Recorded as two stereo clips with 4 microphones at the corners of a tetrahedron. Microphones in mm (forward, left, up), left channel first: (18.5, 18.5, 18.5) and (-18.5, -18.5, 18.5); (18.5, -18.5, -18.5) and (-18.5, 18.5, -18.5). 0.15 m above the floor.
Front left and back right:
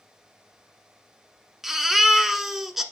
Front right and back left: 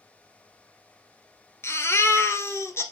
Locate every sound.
1.6 s a baby crying: 55° right, 1.3 m